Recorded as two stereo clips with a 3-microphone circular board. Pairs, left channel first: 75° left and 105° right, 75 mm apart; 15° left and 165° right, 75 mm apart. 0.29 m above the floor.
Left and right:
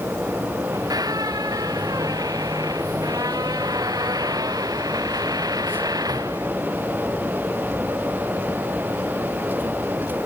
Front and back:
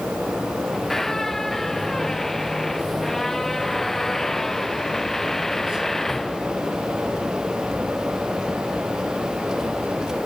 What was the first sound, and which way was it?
A squeak, 70° right.